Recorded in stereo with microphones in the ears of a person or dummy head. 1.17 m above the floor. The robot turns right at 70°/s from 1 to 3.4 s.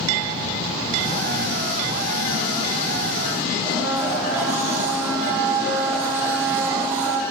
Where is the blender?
10° right (ahead or behind), 7 m.